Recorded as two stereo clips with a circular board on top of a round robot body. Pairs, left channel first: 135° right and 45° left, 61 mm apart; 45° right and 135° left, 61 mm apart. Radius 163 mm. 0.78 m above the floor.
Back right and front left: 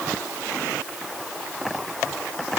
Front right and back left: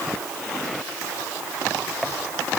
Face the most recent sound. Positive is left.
No sound to turn to.